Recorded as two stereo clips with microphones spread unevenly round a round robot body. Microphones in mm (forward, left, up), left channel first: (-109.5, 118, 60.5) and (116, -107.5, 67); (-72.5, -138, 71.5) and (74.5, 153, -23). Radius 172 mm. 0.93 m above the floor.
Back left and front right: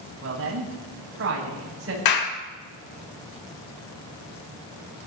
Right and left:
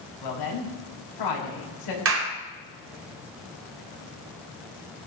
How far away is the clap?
About 3 m.